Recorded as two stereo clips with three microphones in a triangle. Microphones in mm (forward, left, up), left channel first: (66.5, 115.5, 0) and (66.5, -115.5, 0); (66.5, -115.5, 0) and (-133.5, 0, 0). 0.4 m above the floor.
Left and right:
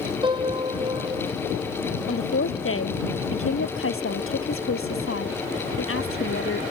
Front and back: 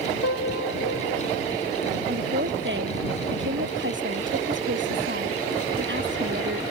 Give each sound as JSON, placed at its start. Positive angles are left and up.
{"t": 0.2, "sound": "a piano", "azimuth_deg": -20}
{"t": 2.1, "sound": "a woman speaking", "azimuth_deg": 115}